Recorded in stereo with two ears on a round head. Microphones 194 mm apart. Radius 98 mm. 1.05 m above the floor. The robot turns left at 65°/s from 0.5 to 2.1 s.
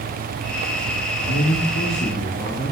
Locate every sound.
1.2 s a man speaking: 75° left, 1.6 m; by 2.7 s 20° left, 1.6 m